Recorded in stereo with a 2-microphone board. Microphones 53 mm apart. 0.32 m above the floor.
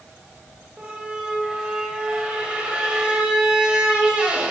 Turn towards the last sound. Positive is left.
turn(degrees=-20)  # may be behind; listen again after turning